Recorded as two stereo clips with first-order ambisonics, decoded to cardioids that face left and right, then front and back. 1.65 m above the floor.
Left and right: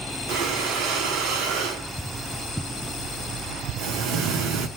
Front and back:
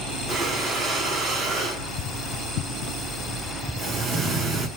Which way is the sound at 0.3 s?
120° right.